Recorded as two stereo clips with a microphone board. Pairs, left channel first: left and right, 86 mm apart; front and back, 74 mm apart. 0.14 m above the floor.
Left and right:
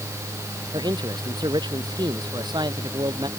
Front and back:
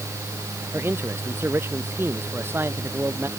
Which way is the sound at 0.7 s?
120° right.